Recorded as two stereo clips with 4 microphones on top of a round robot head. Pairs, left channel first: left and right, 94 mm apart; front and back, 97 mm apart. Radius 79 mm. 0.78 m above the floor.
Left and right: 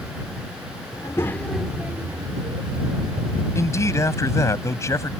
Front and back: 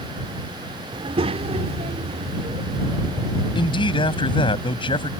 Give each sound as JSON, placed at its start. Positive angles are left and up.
{"t": 0.9, "sound": "a child speaking", "azimuth_deg": 150}
{"t": 3.5, "sound": "a man speaking", "azimuth_deg": 30}